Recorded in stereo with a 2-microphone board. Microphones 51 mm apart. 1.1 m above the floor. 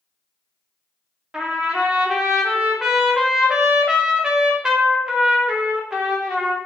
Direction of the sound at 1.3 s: 10° right (ahead or behind).